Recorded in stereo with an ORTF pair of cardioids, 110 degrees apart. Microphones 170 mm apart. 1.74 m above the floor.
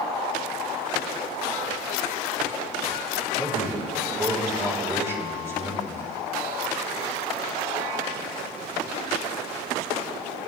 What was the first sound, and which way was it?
A man speaking, 15° right.